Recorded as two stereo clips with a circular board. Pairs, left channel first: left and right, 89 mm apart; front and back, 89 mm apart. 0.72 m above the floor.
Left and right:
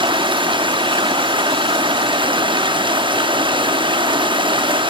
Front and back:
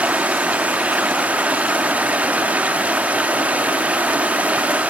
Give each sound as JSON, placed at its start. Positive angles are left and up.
{"t": 0.0, "sound": "running water", "azimuth_deg": -105, "distance_m": 0.7}